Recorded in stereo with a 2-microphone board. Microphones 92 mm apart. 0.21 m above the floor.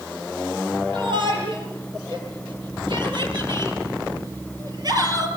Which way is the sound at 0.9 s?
65° right (ahead or behind).